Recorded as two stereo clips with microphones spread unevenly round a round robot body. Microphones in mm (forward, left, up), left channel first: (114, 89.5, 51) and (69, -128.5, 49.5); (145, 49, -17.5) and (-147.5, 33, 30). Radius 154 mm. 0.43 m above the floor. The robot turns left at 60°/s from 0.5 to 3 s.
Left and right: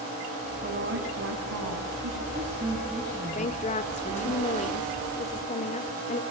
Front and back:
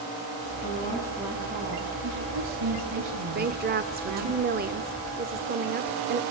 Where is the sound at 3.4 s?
125° left, 1.0 m.